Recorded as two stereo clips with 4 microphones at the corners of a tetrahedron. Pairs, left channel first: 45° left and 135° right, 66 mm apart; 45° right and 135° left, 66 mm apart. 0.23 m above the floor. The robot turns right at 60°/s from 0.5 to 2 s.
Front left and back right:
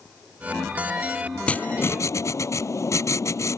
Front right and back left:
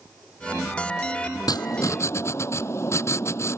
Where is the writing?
30° right; by 3.6 s straight ahead.